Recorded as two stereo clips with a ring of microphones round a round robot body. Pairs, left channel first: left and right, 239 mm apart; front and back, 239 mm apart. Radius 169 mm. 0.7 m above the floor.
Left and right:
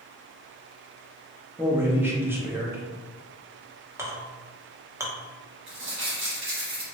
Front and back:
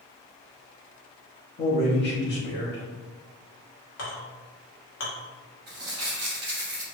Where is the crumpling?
130° right, 1.2 m.